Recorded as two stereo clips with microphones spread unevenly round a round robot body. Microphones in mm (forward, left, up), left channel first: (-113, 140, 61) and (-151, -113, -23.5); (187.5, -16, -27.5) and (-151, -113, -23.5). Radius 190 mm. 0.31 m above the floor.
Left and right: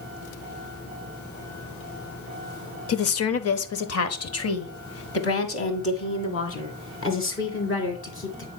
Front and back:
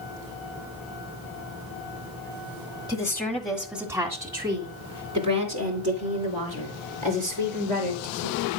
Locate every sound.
2.9 s a woman speaking: 85° left, 1.0 m; by 8.5 s 125° left, 4 m